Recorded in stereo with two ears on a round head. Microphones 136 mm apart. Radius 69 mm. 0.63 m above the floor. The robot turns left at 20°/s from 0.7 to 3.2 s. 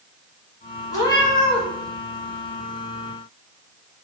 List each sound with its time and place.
0.9 s a cat meowing: 25° left (ahead or behind), 1.2 m; by 1.6 s 40° left (ahead or behind), 1.2 m